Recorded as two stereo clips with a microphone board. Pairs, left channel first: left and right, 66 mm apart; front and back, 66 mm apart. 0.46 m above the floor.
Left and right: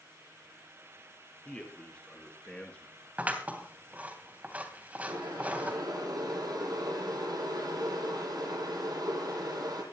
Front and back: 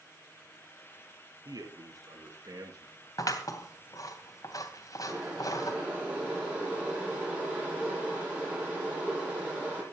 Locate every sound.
1.4 s a man speaking: 165° left, 5.5 m; by 2.9 s 160° left, 6 m
3.2 s scissors: 25° right, 3 m
5.1 s boiling: 110° right, 9.5 m